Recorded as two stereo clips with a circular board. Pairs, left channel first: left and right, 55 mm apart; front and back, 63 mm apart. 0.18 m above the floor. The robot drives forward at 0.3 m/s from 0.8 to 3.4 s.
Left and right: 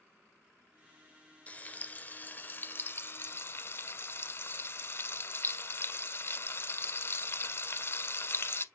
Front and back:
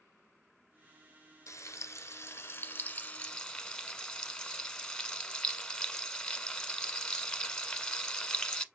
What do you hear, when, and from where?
1.5 s frying: 30° left, 0.8 m; by 8.6 s 75° left, 0.5 m